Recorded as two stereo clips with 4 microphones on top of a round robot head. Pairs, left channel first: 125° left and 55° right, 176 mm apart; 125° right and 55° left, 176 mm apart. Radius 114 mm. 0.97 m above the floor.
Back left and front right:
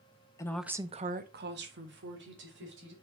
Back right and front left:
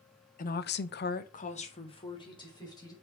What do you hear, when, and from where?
0.4 s a woman speaking: 165° right, 0.8 m; by 2.9 s 55° right, 2.5 m